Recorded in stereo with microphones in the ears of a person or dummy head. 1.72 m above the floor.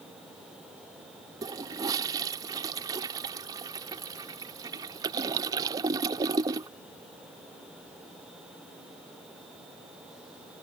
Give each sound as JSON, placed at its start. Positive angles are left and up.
{"t": 1.4, "sound": "a toilet flushing", "side_deg": -30}